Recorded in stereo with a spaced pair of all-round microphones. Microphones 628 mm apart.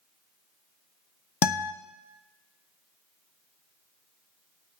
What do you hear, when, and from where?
1.4 s a guitar: 40° left (ahead or behind), 0.6 m